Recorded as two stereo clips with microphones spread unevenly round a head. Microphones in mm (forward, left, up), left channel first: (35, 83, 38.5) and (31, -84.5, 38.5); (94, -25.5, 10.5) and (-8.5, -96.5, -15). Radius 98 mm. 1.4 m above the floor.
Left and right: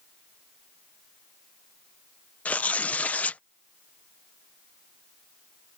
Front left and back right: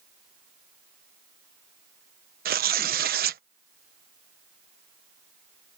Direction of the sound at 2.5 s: 170° left.